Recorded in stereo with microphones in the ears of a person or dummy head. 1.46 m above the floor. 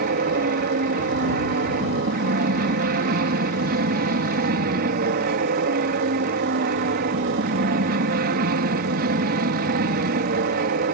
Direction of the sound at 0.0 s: 45° right (ahead or behind).